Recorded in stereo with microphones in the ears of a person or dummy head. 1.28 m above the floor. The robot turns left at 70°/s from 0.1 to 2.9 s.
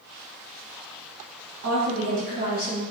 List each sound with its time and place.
1.6 s a woman speaking: 75° right, 1.4 m; by 2.8 s 160° right, 1.4 m